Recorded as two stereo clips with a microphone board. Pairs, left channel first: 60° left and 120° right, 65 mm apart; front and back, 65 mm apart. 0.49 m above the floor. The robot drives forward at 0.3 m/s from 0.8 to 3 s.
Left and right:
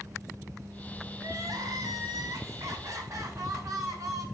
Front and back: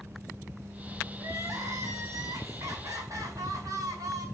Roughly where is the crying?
Behind right.